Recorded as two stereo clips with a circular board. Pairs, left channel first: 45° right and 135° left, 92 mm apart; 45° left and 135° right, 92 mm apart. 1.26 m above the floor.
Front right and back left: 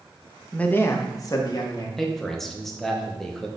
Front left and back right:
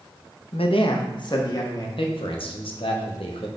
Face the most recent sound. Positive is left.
turn(degrees=40)